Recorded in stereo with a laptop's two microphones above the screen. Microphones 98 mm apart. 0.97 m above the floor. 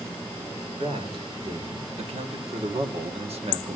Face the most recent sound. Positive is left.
turn(degrees=-65)  # may be behind; listen again after turning